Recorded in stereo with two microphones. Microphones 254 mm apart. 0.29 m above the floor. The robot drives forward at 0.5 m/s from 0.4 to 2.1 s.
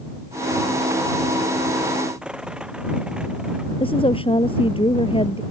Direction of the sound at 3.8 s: 20° left (ahead or behind).